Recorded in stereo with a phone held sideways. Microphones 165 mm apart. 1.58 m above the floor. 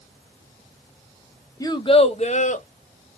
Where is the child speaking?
20° left (ahead or behind), 0.7 m; by 2.7 s 50° left (ahead or behind), 1.2 m.